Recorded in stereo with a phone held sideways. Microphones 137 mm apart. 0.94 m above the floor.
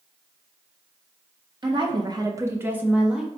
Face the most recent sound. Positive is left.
turn(degrees=-5)  # may be behind; listen again after turning